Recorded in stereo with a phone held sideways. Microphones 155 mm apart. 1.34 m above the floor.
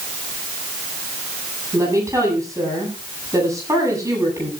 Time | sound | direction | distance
1.7 | a woman speaking | 20° right (ahead or behind) | 9 m